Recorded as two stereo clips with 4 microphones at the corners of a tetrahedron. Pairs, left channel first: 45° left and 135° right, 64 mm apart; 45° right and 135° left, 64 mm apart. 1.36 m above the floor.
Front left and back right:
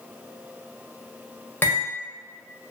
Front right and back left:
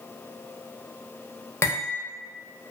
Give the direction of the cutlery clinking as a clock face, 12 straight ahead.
12 o'clock.